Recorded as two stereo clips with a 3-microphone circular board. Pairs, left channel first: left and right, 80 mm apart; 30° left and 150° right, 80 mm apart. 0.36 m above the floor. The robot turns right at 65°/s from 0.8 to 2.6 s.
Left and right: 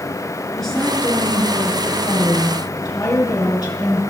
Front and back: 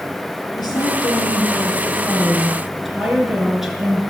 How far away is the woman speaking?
About 5 m.